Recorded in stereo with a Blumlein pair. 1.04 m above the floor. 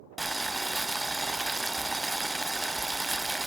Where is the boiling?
5° right, 0.5 m.